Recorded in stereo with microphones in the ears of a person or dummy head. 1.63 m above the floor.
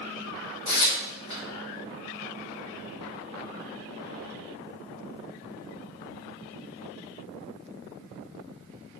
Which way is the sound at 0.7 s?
35° left (ahead or behind).